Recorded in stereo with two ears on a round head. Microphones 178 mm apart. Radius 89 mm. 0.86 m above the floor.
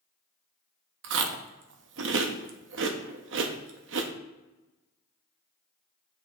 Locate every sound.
1.0 s chewing: 65° right (ahead or behind), 0.6 m